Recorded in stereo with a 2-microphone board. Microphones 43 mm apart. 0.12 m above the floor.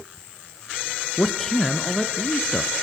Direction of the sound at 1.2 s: 10° left (ahead or behind).